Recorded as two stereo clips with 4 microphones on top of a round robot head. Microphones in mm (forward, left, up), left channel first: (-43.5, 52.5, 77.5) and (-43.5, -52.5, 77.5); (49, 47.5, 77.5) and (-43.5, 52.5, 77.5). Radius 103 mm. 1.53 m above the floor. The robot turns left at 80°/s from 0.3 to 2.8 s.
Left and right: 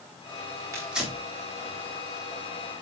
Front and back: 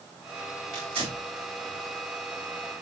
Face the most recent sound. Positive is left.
turn(degrees=40)